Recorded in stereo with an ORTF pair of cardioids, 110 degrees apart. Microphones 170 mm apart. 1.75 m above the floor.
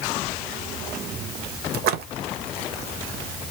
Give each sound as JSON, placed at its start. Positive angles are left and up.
{"t": 1.7, "sound": "a splash", "azimuth_deg": -70, "distance_m": 1.0}